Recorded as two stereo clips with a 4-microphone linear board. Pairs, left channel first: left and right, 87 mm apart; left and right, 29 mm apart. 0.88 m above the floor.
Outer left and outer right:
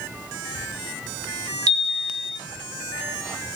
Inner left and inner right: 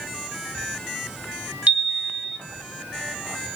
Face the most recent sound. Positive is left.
turn(degrees=-55)  # may be behind; listen again after turning